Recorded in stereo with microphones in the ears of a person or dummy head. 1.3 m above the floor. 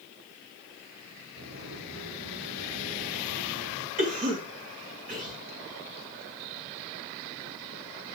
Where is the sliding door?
85° right, 5 m.